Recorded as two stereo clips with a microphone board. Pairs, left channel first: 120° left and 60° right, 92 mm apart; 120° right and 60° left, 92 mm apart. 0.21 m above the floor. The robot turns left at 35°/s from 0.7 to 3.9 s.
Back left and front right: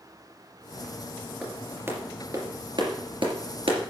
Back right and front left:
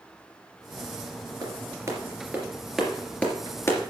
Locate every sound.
1.4 s a clap: 15° left, 3 m; by 3.8 s 65° right, 3 m